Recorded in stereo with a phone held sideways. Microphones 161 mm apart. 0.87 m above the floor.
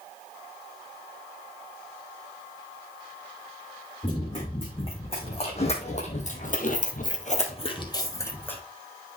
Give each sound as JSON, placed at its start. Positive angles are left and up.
{"t": 4.0, "sound": "running footsteps", "side_deg": 30, "distance_m": 5.0}